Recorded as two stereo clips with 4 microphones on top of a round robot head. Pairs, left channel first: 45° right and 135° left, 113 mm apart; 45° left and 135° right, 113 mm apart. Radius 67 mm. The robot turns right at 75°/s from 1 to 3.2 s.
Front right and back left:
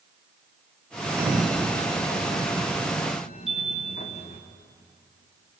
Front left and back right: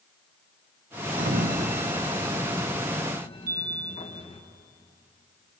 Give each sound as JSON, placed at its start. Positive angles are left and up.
{"t": 1.2, "sound": "a sliding door", "azimuth_deg": -155, "distance_m": 1.3}
{"t": 3.5, "sound": "a chime", "azimuth_deg": -135, "distance_m": 2.5}